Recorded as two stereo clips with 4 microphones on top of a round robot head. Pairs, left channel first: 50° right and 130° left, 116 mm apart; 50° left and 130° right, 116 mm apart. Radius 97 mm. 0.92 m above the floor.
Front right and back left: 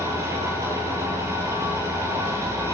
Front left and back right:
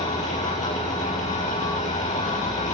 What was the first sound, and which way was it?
An engine running, 70° left.